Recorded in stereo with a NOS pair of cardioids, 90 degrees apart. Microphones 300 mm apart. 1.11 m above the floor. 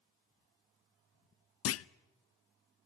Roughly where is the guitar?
I don't hear a guitar.